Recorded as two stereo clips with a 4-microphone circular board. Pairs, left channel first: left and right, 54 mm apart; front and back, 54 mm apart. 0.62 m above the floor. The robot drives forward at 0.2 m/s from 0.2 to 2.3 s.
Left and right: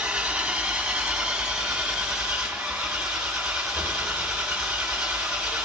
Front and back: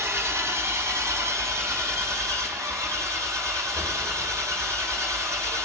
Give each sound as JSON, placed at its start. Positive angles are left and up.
{"t": 0.0, "sound": "an engine running", "azimuth_deg": -160, "distance_m": 1.0}